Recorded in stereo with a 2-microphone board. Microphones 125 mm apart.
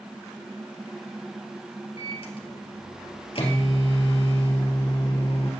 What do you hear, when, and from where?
2.0 s a microwave: 50° left (ahead or behind), 2.5 m